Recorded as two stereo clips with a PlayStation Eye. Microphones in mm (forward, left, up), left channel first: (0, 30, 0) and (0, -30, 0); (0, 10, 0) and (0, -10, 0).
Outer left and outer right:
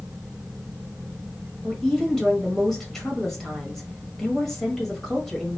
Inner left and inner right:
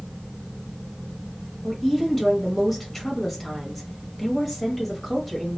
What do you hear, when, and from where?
1.6 s a woman speaking: 5° left (ahead or behind), 1.1 m